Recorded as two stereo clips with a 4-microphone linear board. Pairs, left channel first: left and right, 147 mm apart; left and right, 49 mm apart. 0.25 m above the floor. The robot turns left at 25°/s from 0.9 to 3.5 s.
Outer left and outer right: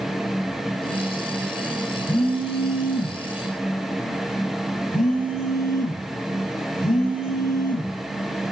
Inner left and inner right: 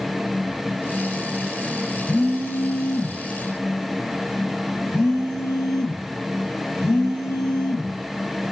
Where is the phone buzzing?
130° left, 2 m; by 8.0 s 95° left, 2 m.